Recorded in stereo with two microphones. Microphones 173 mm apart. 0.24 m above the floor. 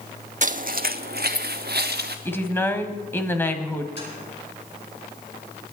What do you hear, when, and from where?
0.4 s footsteps: 50° right (ahead or behind), 0.6 m; by 2.1 s 75° right (ahead or behind), 1.7 m
2.2 s a woman speaking: 15° left (ahead or behind), 1.3 m
4.0 s tapping: 80° left, 9 m